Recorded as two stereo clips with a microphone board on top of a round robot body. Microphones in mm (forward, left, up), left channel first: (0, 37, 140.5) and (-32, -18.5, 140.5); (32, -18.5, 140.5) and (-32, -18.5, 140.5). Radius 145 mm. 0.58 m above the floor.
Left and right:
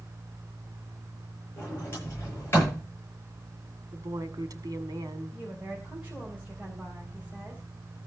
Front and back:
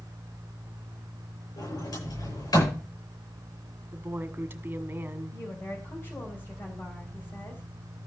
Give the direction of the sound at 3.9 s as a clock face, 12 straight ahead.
4 o'clock.